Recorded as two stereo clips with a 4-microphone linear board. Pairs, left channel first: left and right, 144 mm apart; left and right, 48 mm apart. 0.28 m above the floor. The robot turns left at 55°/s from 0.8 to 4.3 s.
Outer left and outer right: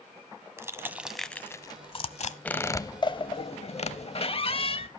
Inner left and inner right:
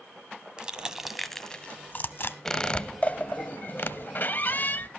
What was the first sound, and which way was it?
Crushing, 20° right (ahead or behind).